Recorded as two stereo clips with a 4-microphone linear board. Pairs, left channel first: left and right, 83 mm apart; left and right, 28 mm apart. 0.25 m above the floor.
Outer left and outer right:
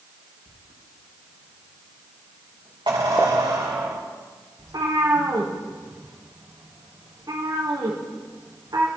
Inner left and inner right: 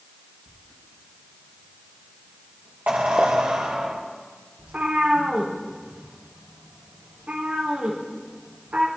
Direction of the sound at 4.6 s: 50° right (ahead or behind).